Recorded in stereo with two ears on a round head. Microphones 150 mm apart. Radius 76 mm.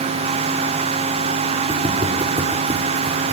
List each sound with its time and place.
1.7 s footsteps: 40° right (ahead or behind), 5.5 m; by 3.3 s 35° right (ahead or behind), 5 m